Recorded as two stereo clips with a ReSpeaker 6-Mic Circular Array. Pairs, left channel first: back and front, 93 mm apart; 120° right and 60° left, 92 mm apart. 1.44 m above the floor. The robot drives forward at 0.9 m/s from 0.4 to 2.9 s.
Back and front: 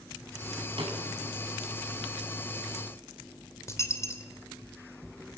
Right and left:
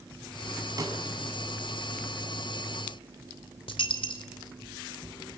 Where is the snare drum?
10° left, 6 m.